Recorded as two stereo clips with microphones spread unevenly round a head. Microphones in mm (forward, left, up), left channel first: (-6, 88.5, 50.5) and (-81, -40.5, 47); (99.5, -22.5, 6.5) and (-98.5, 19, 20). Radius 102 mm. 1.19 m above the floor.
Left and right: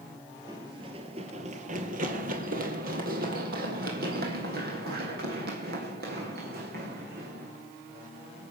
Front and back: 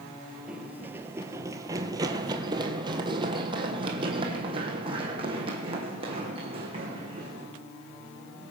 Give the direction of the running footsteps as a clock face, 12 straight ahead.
4 o'clock.